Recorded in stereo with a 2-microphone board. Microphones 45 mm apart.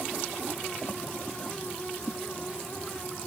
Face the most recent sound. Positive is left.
No sound to turn to.